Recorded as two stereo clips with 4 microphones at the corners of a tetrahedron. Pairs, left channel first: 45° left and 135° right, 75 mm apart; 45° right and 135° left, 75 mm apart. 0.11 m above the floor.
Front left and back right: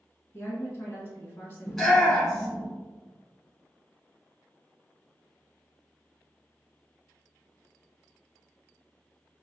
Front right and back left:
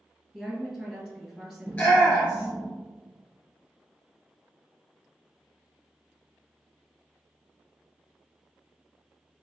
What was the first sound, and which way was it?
A woman speaking, 60° left.